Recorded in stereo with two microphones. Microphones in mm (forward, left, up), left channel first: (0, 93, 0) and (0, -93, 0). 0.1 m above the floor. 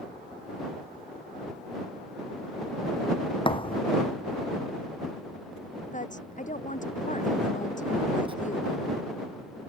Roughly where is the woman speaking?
Left.